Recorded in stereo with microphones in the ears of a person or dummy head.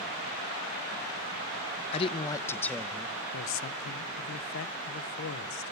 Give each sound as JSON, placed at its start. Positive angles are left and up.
{"t": 1.9, "sound": "a man speaking", "side_deg": 35, "distance_m": 0.7}
{"t": 3.3, "sound": "a man speaking", "side_deg": 60, "distance_m": 0.7}